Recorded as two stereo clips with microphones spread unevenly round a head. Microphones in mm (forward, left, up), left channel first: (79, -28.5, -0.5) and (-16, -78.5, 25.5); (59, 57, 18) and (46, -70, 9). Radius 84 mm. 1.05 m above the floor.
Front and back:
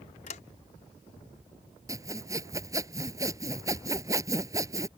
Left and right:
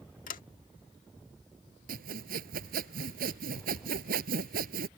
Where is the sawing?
95° right.